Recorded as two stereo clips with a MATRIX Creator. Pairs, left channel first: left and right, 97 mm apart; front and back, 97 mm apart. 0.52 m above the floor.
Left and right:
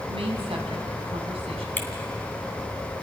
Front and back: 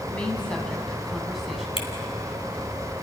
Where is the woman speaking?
75° right, 3.5 m; by 1.7 s 95° right, 3.5 m.